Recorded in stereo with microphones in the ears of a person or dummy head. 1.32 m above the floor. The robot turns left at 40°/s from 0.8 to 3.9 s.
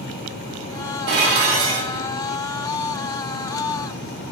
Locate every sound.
1.1 s dishes clattering: 115° right, 0.6 m; by 2.1 s 155° right, 0.6 m